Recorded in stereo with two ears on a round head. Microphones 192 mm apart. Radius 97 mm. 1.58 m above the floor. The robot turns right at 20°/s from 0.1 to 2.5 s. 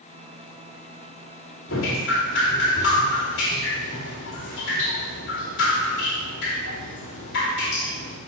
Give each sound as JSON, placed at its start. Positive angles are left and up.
{"t": 1.7, "sound": "dripping", "side_deg": 70, "distance_m": 2.5}